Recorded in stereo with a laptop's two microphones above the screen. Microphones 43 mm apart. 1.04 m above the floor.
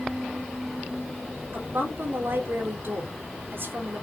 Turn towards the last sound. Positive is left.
turn(degrees=-65)  # may be behind; listen again after turning